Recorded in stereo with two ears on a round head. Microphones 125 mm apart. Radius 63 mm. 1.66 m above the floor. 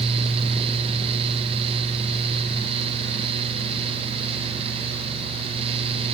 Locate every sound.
Only background noise.